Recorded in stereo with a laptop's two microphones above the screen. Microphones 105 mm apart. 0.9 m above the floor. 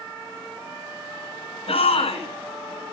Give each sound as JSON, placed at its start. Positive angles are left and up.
{"t": 1.7, "sound": "a shout", "side_deg": 85, "distance_m": 6.5}